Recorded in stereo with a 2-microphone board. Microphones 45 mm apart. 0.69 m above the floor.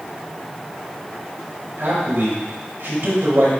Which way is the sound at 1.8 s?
50° right (ahead or behind).